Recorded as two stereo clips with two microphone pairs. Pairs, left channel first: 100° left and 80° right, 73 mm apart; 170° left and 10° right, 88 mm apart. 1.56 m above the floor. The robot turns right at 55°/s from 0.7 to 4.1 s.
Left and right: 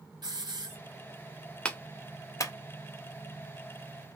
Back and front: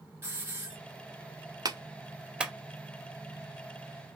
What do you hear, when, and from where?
0.2 s a hiss: 70° right, 1.9 m
1.6 s a clap: 25° left, 0.7 m; by 2.5 s 70° left, 0.7 m